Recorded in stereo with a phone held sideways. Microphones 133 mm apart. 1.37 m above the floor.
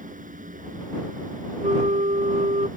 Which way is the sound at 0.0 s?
85° right.